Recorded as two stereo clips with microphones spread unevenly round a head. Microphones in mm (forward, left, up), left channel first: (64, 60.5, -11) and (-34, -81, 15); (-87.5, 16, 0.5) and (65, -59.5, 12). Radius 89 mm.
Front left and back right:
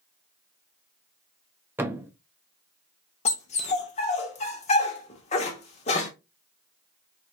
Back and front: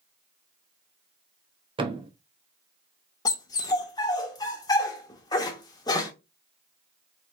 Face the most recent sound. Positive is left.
turn(degrees=95)